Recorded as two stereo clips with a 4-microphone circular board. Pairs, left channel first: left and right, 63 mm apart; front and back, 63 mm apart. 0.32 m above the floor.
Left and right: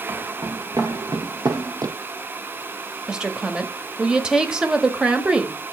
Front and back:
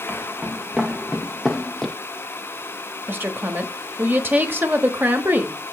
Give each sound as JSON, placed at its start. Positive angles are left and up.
{"t": 0.1, "sound": "footsteps", "azimuth_deg": -100, "distance_m": 2.0}
{"t": 3.1, "sound": "a woman speaking", "azimuth_deg": -160, "distance_m": 1.2}